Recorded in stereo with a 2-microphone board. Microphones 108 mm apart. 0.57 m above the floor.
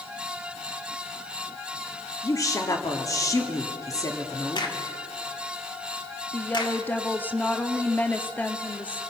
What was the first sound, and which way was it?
A woman speaking, 30° left (ahead or behind).